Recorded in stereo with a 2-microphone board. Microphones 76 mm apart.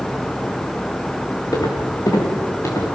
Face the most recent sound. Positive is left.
turn(degrees=40)  # may be behind; listen again after turning